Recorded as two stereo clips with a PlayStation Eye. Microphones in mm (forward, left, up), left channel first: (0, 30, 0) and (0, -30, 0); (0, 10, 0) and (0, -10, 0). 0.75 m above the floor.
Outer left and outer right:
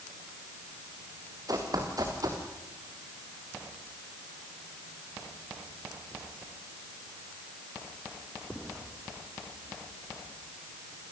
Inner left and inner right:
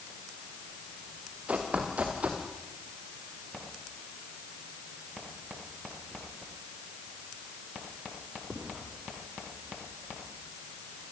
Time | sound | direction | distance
1.5 | running footsteps | 75° right (ahead or behind) | 4.5 m